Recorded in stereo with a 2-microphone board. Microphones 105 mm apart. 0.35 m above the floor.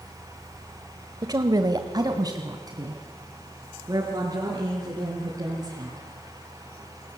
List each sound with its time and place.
1.2 s a woman speaking: 35° right (ahead or behind), 1.1 m